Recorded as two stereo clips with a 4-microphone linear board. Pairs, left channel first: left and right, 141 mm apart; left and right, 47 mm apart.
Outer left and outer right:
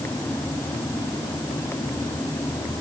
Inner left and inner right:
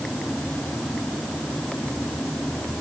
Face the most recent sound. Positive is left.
No sound to turn to.